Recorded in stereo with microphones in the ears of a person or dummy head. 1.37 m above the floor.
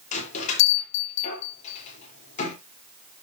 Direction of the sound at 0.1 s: 40° left (ahead or behind).